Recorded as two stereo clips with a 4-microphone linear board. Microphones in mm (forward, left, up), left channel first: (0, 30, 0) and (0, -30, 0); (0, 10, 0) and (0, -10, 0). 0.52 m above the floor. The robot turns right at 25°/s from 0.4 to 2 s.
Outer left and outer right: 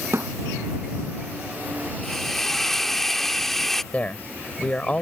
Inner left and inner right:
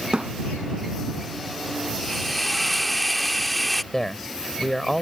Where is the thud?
55° right (ahead or behind).